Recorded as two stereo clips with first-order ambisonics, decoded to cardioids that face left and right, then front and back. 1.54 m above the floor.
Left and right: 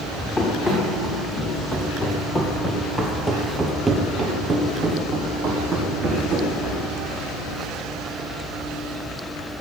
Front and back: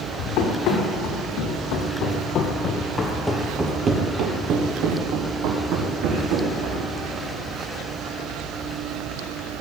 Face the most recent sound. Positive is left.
turn(degrees=-165)